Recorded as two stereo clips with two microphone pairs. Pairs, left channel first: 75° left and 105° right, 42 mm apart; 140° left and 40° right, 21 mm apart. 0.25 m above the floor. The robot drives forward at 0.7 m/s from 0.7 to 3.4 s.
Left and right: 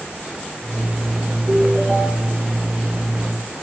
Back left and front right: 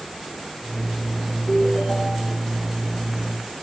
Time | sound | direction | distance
1.5 | a ringtone | 165° right | 7.5 m